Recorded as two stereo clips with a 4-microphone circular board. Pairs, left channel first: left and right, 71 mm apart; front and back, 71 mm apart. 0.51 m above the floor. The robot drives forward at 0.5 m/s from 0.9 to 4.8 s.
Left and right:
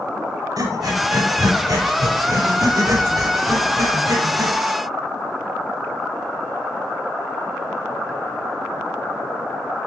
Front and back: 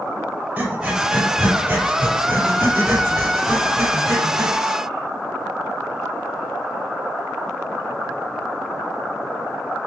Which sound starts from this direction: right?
Breathing, at 0.6 s.